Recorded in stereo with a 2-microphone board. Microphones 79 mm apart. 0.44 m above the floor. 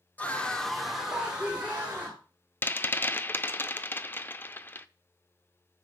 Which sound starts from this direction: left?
A rattle, at 2.6 s.